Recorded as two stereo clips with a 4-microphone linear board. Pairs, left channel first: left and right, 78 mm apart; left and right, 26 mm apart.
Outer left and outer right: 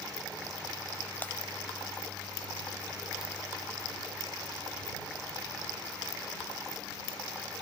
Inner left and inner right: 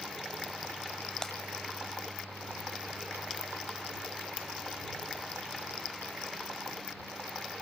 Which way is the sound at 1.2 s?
25° left (ahead or behind).